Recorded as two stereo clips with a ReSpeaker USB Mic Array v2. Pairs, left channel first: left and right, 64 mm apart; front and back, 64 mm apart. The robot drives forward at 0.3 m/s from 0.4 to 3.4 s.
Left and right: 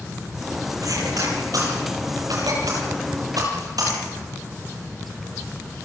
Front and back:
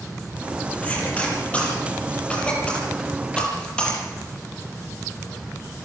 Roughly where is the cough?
Right.